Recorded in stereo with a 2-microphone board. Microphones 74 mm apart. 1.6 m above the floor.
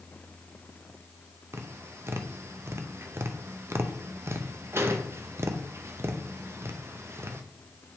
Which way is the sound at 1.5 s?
35° right (ahead or behind).